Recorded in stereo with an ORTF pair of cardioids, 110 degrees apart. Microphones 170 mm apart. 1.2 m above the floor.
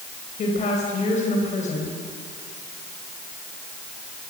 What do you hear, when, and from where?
0.4 s a woman speaking: 45° left, 5.5 m